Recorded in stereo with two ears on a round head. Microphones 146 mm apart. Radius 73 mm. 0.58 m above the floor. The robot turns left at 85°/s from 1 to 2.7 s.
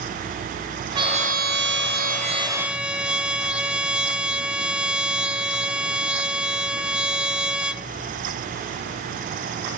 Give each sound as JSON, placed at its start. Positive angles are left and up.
{"t": 0.9, "sound": "a trumpet", "azimuth_deg": -30, "distance_m": 0.6}